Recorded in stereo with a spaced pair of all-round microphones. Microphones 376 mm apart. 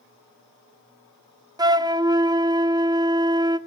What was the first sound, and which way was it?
A flute, 10° right (ahead or behind).